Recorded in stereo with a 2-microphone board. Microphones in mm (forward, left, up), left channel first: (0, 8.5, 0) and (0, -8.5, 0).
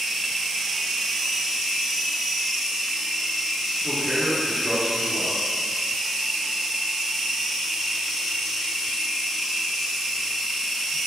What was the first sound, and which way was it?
A man speaking, 25° right (ahead or behind).